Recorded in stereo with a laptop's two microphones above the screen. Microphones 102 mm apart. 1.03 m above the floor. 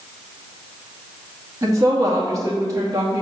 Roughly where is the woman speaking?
Right.